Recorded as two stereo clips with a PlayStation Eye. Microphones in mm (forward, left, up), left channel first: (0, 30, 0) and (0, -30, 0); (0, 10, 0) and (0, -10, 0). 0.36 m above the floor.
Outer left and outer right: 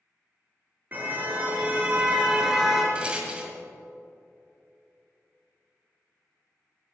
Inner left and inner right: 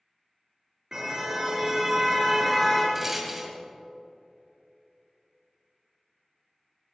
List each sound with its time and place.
0.9 s a car horn: 35° right (ahead or behind), 3 m; by 2.9 s 5° right (ahead or behind), 3 m
3.0 s a rattle: 20° right (ahead or behind), 1.9 m